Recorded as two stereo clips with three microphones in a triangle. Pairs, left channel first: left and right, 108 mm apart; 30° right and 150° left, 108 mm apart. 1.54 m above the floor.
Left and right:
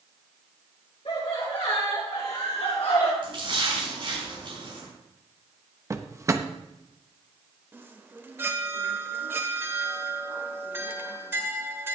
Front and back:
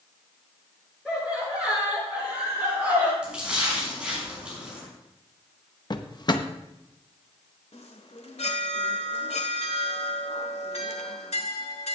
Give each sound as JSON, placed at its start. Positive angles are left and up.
{"t": 1.1, "sound": "laughter", "azimuth_deg": 70, "distance_m": 6.5}
{"t": 3.2, "sound": "a splash", "azimuth_deg": -130, "distance_m": 6.5}
{"t": 5.9, "sound": "a drawer", "azimuth_deg": -45, "distance_m": 0.8}
{"t": 7.7, "sound": "a chime", "azimuth_deg": -20, "distance_m": 1.4}